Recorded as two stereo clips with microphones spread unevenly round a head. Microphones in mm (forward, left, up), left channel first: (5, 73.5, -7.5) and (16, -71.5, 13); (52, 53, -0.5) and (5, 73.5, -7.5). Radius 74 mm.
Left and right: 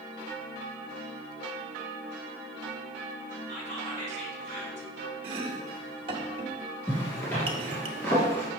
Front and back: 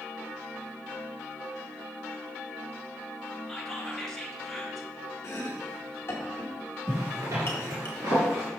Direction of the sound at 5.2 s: 45° right.